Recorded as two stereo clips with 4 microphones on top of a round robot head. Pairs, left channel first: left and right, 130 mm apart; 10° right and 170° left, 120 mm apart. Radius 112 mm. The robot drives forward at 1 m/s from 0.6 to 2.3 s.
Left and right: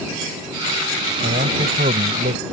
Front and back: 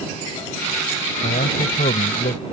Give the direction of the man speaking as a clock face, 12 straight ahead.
2 o'clock.